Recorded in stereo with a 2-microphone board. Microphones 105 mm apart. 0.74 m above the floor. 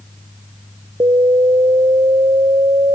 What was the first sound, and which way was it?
An alarm, 50° right (ahead or behind).